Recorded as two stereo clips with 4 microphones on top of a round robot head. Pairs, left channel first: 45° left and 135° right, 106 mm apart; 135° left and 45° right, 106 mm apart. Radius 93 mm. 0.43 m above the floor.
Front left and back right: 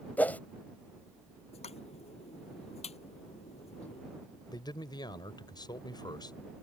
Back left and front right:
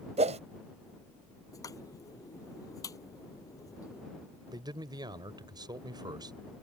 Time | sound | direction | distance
0.2 | a whoosh | 30° right | ?
1.5 | a pop | 75° left | ?
4.5 | a man speaking | straight ahead | ?